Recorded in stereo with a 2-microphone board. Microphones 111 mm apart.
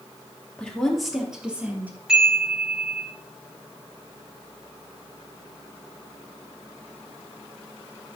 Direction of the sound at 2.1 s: 10° right (ahead or behind).